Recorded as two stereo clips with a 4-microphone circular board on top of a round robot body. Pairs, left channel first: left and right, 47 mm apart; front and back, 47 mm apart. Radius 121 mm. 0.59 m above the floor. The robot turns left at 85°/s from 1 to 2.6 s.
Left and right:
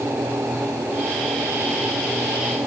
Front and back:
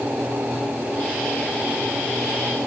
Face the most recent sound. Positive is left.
No sound to turn to.